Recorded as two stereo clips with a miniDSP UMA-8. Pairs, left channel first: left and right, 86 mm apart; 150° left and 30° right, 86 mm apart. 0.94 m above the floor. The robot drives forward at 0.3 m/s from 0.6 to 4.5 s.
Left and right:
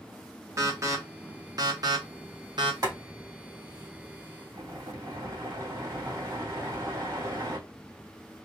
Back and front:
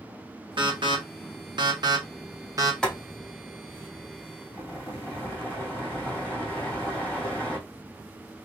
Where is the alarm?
40° right, 1.1 m; by 2.7 s 75° right, 0.8 m.